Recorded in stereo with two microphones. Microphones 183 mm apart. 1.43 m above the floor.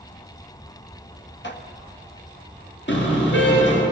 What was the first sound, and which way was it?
Dishes clattering, 75° left (ahead or behind).